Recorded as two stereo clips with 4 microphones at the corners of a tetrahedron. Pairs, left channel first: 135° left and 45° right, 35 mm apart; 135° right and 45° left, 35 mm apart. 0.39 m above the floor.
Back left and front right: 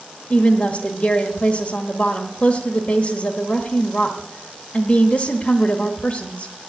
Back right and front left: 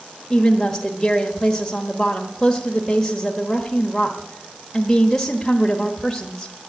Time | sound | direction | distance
0.3 | a woman speaking | 150° left | 1.2 m